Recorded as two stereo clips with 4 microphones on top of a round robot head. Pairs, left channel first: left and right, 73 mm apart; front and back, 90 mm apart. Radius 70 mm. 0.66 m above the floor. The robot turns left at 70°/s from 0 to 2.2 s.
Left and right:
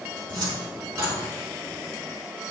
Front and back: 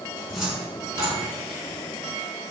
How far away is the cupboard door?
About 3 m.